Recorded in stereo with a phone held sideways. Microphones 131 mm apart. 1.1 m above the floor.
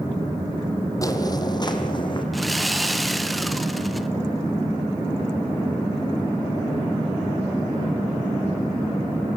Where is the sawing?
Centre (ahead or behind), 0.9 m.